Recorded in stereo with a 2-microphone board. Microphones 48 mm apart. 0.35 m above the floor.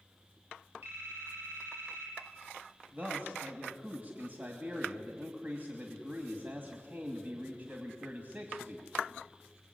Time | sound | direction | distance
0.8 | a phone ringing | 45° right (ahead or behind) | 9 m
2.9 | a man speaking | 40° right (ahead or behind) | 2.5 m